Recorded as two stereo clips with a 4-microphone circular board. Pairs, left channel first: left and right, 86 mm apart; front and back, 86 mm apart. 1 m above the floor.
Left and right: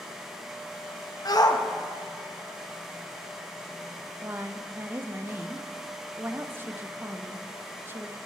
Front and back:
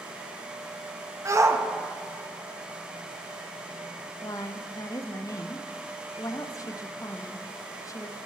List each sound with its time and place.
1.2 s a shout: 125° left, 0.9 m
4.2 s a woman speaking: 35° right, 0.6 m